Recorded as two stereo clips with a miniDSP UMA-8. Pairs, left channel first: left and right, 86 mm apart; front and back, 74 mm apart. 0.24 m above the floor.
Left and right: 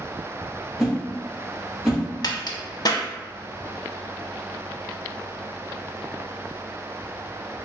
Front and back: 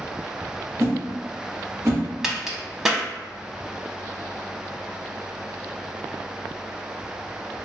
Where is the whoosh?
Straight behind, 1.7 m.